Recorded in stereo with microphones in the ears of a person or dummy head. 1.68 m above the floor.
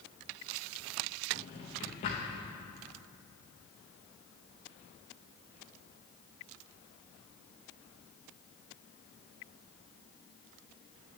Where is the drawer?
25° left (ahead or behind), 1.0 m.